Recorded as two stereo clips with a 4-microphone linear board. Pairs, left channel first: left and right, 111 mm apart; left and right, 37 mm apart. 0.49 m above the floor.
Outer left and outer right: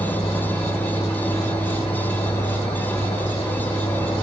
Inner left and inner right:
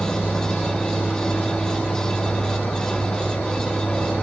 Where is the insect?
60° left (ahead or behind), 2.5 m.